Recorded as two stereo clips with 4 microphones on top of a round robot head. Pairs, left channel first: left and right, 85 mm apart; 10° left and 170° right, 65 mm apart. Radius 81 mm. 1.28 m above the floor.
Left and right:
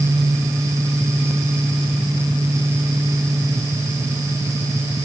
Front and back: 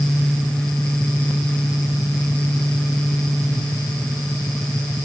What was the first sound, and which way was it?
Only background noise.